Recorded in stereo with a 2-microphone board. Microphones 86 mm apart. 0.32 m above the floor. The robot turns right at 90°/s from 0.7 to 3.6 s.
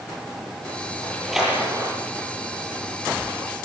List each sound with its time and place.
1.0 s a splash: 25° left (ahead or behind), 9.5 m; by 1.9 s 55° right (ahead or behind), 9.5 m